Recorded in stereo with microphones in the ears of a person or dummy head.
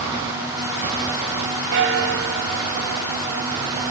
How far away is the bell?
About 2 m.